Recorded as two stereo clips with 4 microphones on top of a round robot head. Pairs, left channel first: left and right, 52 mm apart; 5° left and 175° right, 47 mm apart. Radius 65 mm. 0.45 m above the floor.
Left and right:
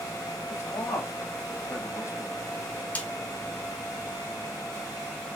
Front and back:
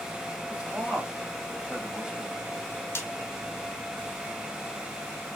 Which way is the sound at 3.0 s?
30° left.